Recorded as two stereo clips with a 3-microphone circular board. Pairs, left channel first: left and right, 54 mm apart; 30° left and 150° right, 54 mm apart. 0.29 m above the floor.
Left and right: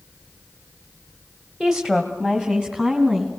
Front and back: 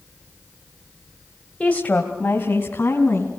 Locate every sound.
1.6 s a woman speaking: 20° right, 1.6 m; by 3.3 s 15° right, 3.5 m